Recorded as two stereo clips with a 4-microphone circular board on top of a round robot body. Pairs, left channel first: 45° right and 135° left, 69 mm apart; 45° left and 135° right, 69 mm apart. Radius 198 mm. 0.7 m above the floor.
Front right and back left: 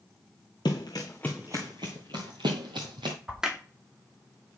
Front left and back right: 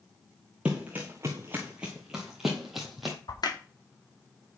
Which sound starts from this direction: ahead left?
A crack, at 3.3 s.